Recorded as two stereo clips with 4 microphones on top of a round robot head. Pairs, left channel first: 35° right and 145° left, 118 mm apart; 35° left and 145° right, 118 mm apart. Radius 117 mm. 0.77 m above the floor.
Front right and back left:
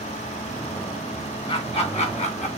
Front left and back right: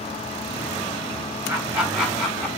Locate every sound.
1.5 s laughter: 75° right, 2 m; by 2.5 s 45° right, 1.7 m